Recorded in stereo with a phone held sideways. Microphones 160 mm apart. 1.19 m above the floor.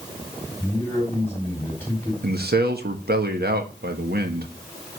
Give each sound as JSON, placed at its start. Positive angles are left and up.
{"t": 0.6, "sound": "a man speaking", "side_deg": 15, "distance_m": 4.0}
{"t": 2.2, "sound": "a man speaking", "side_deg": -85, "distance_m": 1.5}